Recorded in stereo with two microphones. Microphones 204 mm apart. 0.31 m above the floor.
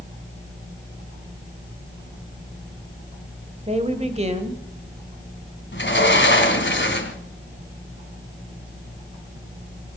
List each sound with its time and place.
3.7 s a woman speaking: 30° right (ahead or behind), 1.7 m
5.7 s a sliding door: 65° left (ahead or behind), 2 m